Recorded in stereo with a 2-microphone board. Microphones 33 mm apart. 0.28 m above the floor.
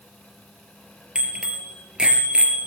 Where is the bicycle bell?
25° right (ahead or behind), 4 m; by 2.7 s 35° right (ahead or behind), 3.5 m.